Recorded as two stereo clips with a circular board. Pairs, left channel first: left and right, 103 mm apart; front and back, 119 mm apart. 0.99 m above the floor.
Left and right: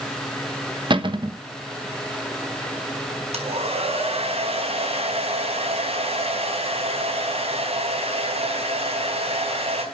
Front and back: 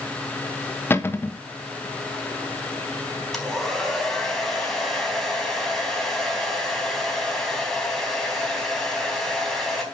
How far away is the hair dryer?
About 4 m.